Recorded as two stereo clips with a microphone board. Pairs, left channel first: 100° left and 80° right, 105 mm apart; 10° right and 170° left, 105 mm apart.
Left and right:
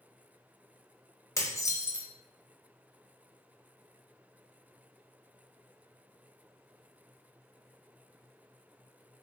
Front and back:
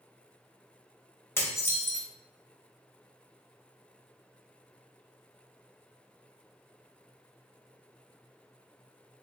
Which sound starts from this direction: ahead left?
Dishes clattering, at 1.4 s.